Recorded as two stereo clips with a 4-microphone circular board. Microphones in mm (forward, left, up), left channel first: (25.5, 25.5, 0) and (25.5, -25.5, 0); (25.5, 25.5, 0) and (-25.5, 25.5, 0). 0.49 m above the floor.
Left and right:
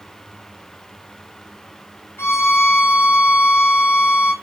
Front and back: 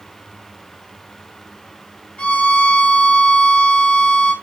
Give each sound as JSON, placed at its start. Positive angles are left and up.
{"t": 2.2, "sound": "a violin", "azimuth_deg": 65, "distance_m": 2.5}